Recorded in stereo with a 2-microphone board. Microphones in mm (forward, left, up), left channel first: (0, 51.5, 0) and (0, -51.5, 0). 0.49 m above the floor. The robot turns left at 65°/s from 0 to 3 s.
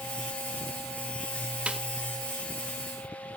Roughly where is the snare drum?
Centre.